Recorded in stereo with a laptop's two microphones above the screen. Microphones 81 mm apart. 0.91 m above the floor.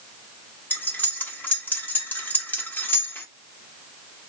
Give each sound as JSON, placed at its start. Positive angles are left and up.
{"t": 0.7, "sound": "cutlery clinking", "side_deg": 25, "distance_m": 1.1}